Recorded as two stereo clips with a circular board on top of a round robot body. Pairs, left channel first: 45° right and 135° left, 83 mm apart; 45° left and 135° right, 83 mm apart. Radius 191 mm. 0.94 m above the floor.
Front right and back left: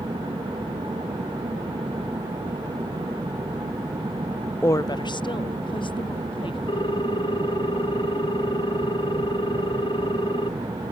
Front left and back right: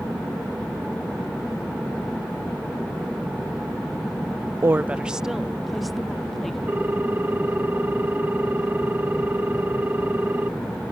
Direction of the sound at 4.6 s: 95° right.